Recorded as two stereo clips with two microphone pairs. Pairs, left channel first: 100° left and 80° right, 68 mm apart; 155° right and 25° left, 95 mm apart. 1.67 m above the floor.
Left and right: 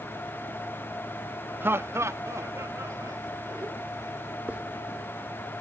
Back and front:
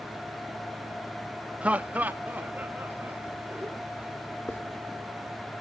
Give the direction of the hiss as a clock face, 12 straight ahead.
4 o'clock.